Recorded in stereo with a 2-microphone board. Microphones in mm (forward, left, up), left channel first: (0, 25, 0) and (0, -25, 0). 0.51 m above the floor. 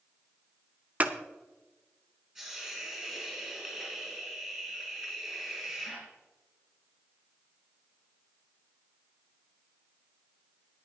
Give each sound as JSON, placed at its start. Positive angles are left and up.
{"t": 1.0, "sound": "scissors", "side_deg": -30, "distance_m": 0.8}
{"t": 2.4, "sound": "a hiss", "side_deg": -15, "distance_m": 6.0}